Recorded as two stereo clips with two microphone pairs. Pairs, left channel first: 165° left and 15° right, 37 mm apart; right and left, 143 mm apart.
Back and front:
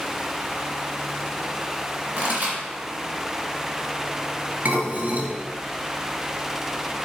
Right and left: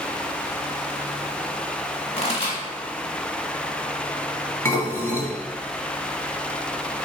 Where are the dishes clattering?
30° right, 1.1 m.